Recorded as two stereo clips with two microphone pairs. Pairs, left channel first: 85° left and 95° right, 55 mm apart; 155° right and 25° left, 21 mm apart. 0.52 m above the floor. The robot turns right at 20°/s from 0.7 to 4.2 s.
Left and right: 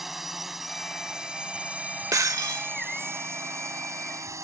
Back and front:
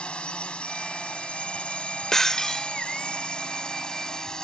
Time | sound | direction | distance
0.0 | a drone | straight behind | ?
2.1 | breaking glass | 95° right | ?